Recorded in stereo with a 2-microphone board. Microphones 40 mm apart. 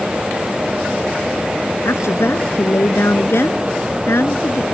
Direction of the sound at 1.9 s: 80° left.